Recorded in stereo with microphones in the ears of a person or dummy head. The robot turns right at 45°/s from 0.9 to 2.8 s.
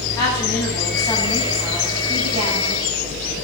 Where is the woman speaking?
160° left, 9.5 m; by 2.8 s 115° right, 9.5 m.